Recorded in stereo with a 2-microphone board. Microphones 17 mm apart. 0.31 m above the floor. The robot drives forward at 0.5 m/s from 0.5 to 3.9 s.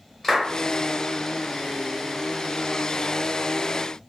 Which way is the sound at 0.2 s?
15° left (ahead or behind).